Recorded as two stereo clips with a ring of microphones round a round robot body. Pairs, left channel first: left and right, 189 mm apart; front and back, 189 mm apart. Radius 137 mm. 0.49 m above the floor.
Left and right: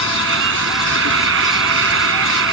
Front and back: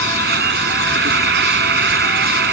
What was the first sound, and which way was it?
An insect, 130° right.